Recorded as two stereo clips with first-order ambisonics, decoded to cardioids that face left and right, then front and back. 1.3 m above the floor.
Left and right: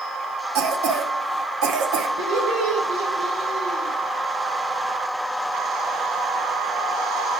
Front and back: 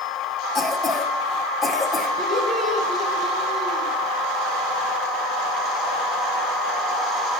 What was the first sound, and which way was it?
A cough, 80° right.